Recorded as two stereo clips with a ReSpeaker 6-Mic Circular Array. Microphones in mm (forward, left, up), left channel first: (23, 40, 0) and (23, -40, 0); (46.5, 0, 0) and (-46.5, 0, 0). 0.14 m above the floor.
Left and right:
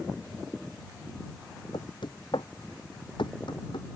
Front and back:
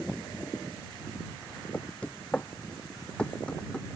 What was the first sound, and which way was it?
Knocking, 75° left.